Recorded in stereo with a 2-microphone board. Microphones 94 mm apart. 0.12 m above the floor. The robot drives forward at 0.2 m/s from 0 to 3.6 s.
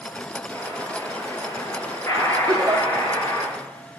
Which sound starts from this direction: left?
An explosion, at 0.5 s.